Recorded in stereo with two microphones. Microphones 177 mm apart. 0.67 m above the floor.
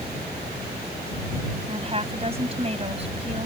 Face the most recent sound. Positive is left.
turn(degrees=-35)  # may be behind; listen again after turning